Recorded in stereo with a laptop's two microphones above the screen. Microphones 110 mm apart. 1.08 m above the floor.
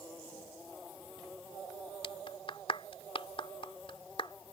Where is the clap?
60° left (ahead or behind).